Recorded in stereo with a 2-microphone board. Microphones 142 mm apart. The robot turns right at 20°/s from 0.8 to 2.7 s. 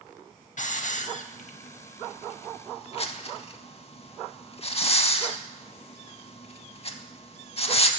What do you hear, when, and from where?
0.6 s a hiss: 60° left (ahead or behind), 0.5 m; by 7.9 s 45° left (ahead or behind), 0.5 m